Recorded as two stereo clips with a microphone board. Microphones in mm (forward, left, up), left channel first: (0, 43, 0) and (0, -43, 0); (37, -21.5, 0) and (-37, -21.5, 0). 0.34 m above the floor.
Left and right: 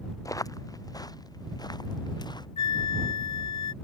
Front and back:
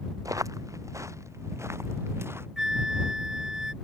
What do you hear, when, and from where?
0.2 s footsteps: 140° left; by 2.5 s 125° left
2.6 s a flute: 100° left